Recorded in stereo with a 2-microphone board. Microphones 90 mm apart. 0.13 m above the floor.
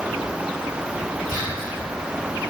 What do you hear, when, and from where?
1.3 s whispering: 20° right (ahead or behind), 1.4 m